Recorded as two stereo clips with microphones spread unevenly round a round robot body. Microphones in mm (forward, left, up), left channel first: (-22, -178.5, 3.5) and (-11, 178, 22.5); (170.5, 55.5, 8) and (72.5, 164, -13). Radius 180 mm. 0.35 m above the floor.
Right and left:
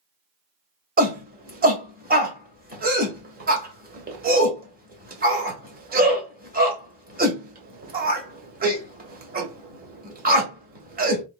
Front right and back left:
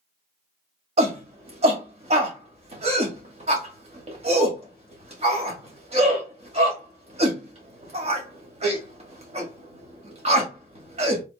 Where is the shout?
150° left, 1.5 m.